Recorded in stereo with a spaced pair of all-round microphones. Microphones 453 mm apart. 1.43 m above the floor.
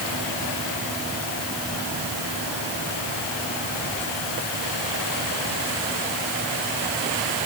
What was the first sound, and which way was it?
Only background noise.